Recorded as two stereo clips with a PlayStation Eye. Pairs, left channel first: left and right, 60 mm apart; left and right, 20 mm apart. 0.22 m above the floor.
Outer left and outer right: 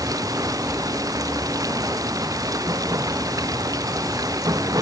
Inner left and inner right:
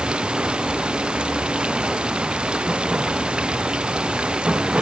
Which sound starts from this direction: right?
Running water, at 0.0 s.